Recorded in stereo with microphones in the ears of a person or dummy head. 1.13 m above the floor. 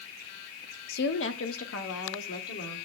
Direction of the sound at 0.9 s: 60° left (ahead or behind).